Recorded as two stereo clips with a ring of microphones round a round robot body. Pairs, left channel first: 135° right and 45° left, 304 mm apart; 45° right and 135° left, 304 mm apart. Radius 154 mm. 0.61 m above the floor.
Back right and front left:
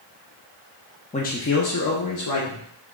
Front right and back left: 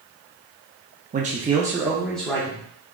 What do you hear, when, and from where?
1.1 s a man speaking: 175° left, 0.7 m; by 2.6 s 125° right, 1.2 m